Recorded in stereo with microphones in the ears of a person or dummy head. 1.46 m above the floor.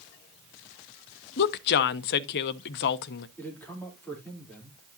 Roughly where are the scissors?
I don't hear scissors.